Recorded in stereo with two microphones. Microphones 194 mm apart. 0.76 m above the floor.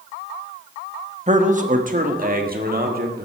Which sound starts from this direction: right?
A man speaking, at 1.3 s.